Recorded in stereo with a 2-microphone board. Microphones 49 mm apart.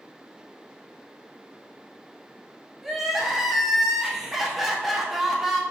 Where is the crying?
5° right (ahead or behind), 0.7 m.